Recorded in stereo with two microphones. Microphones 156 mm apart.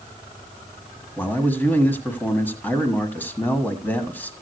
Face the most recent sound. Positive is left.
turn(degrees=10)  # may be behind; listen again after turning